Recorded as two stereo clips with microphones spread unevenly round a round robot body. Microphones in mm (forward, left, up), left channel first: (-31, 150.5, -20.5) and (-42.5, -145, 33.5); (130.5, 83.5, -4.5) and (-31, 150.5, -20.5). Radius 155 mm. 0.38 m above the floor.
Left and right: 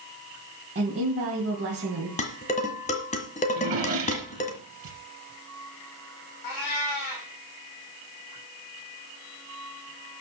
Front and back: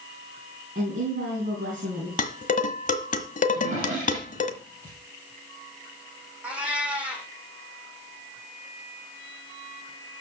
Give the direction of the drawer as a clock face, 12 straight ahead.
5 o'clock.